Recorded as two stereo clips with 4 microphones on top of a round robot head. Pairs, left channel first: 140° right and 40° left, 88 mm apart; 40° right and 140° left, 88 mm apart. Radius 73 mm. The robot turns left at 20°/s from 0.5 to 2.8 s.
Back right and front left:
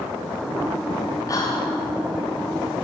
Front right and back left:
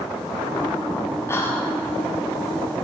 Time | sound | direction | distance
1.3 | whispering | 95° right | 1.6 m